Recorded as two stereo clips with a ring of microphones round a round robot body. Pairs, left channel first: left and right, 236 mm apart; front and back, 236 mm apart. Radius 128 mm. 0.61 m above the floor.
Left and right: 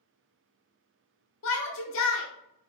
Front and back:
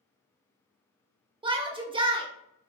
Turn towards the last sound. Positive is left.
turn(degrees=115)